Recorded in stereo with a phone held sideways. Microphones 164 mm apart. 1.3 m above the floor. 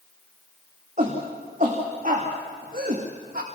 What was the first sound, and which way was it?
A shout, 50° right (ahead or behind).